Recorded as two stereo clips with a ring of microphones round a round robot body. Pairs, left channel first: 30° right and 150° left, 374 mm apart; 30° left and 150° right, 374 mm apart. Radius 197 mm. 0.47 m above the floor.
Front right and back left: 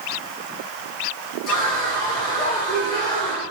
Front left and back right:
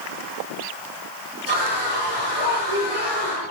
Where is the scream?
100° right, 10 m.